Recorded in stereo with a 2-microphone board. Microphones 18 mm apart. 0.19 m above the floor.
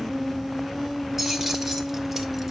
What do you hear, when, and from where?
1.2 s keys jangling: 10° right (ahead or behind), 2 m